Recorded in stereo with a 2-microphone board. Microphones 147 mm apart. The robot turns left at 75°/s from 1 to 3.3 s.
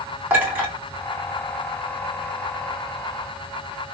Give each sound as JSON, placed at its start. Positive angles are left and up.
{"t": 0.3, "sound": "a clink", "side_deg": -15, "distance_m": 1.4}